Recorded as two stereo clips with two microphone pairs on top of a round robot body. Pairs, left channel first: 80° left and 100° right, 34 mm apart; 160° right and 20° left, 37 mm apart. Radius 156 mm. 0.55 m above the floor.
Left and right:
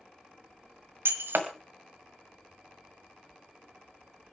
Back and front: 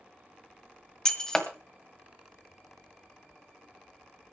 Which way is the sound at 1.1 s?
85° right.